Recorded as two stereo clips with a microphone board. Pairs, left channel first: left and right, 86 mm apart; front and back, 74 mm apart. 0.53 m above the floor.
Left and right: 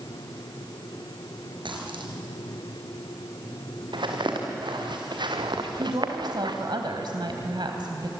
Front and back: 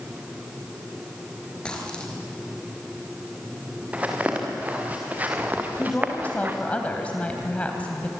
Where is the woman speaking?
70° right, 3 m.